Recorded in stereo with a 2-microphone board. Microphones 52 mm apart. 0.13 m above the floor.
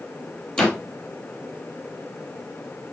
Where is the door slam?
20° left (ahead or behind), 3 m.